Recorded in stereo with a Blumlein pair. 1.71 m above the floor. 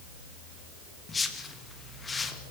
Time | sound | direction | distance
1.1 | a whoosh | 15° left | 2 m